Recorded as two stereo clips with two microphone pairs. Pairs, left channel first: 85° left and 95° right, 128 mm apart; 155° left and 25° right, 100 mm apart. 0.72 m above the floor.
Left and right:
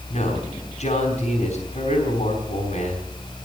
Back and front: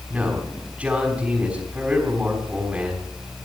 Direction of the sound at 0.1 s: 50° left.